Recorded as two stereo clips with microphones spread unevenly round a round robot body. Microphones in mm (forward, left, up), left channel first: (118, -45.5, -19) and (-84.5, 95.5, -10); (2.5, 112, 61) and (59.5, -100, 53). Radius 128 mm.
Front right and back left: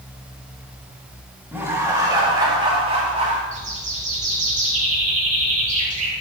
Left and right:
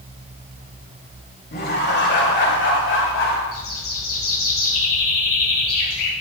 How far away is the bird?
About 3.5 m.